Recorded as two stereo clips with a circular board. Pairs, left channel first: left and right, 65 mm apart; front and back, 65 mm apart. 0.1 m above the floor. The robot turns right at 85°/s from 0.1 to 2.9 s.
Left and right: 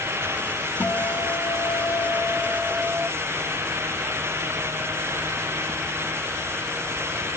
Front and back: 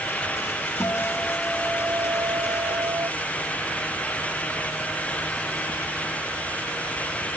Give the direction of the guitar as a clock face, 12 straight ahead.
11 o'clock.